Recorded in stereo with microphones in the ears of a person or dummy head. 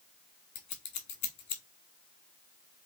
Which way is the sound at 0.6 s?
35° left (ahead or behind).